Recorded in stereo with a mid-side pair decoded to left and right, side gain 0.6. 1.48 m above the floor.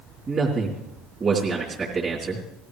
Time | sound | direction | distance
0.3 | a man speaking | 35° right | 3.5 m